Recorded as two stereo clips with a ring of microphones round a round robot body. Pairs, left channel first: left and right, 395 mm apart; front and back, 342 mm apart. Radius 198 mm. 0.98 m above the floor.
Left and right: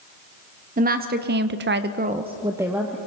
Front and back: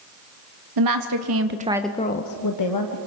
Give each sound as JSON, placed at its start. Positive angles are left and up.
{"t": 0.8, "sound": "a woman speaking", "azimuth_deg": -160, "distance_m": 1.7}